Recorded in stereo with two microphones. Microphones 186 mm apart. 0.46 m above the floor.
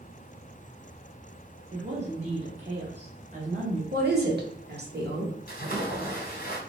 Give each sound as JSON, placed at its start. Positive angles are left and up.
{"t": 1.7, "sound": "a woman speaking", "side_deg": -35, "distance_m": 1.7}
{"t": 3.9, "sound": "a woman speaking", "side_deg": -60, "distance_m": 1.4}
{"t": 5.5, "sound": "a splash", "side_deg": 50, "distance_m": 1.6}